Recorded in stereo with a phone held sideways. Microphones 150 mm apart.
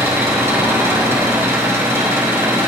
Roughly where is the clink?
No clink in this recording.